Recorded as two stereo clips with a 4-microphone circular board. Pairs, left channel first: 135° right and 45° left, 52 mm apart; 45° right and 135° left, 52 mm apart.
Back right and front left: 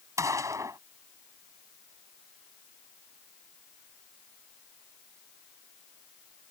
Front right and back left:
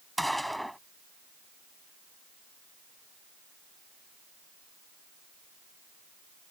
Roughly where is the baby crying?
I don't hear a baby crying.